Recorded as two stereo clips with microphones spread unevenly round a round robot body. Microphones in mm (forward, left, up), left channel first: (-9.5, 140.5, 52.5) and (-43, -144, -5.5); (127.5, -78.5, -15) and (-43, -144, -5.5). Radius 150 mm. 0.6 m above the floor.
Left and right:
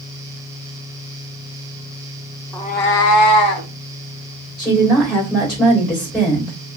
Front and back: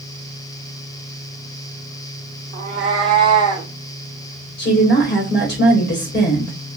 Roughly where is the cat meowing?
Behind left.